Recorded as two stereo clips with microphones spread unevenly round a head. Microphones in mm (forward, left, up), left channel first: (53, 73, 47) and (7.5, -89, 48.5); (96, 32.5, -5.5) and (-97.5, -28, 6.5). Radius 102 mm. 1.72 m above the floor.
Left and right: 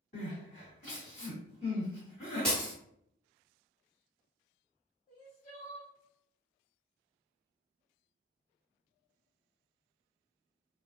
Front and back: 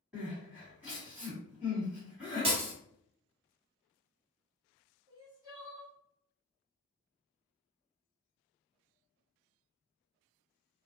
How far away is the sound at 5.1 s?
About 2.0 m.